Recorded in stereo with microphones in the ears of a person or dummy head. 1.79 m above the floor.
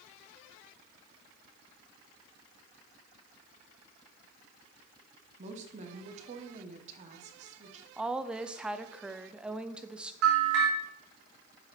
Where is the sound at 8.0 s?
5° right (ahead or behind), 0.7 m.